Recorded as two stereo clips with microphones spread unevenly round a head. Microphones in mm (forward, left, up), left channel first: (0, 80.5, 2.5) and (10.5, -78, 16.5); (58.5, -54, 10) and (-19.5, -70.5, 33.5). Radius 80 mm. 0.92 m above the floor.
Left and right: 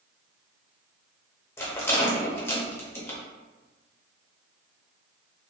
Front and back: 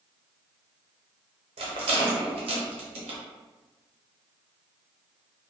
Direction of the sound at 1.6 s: 170° left.